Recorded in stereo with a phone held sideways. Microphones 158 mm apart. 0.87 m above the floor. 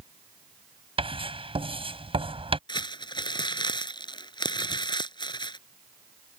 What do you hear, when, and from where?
1.0 s writing: 35° right (ahead or behind)
2.7 s crumpling: 30° left (ahead or behind)